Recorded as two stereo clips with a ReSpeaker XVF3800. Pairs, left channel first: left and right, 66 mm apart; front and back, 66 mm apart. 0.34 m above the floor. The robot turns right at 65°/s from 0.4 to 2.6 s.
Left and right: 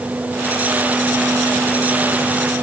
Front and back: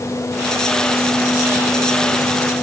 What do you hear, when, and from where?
Only background noise.